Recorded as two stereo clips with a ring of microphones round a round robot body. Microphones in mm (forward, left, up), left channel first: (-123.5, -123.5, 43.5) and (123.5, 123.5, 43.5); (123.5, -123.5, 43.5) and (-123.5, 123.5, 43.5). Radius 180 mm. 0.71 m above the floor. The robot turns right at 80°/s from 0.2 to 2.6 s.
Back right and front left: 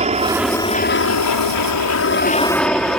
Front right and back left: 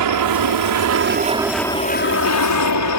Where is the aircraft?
115° left; by 3.0 s 45° right.